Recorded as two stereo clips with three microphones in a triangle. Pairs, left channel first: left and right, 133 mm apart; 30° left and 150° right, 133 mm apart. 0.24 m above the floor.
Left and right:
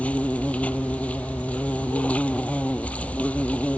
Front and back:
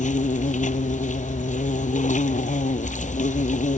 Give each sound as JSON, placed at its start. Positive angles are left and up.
{"t": 0.0, "sound": "an insect", "azimuth_deg": 10}